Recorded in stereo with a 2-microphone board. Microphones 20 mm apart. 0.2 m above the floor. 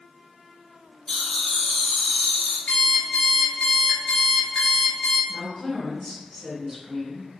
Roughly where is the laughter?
Left.